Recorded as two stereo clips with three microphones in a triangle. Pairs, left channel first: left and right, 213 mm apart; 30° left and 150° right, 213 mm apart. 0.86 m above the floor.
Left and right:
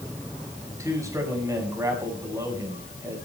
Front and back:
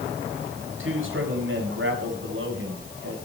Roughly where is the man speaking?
Behind.